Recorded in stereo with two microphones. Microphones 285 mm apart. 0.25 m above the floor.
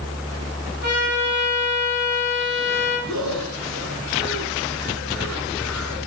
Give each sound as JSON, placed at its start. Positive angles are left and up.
{"t": 0.8, "sound": "a trumpet", "side_deg": -35, "distance_m": 7.5}
{"t": 3.1, "sound": "breathing", "side_deg": -80, "distance_m": 5.0}